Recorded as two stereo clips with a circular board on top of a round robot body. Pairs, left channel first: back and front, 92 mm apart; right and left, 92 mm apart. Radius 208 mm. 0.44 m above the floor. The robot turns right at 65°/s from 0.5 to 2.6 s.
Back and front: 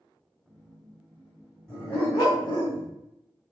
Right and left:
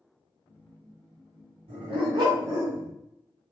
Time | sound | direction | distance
1.7 | a dog barking | 95° left | 1.4 m